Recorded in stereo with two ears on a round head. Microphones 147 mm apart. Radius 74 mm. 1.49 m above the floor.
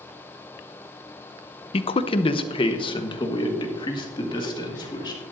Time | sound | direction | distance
1.7 | a man speaking | 35° left (ahead or behind) | 0.5 m